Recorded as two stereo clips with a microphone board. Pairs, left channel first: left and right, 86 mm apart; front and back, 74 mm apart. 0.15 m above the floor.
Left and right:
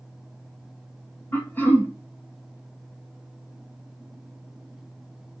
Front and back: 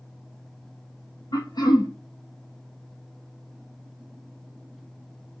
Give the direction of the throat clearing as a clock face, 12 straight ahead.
11 o'clock.